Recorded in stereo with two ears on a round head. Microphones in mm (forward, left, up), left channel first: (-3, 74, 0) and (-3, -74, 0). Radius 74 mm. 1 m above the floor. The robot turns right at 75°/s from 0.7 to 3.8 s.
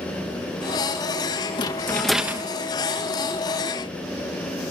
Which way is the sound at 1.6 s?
140° left.